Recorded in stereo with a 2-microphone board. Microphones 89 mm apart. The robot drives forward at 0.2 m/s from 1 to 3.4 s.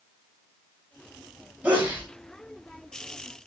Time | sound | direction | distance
1.6 | a sneeze | 20° right (ahead or behind) | 1.3 m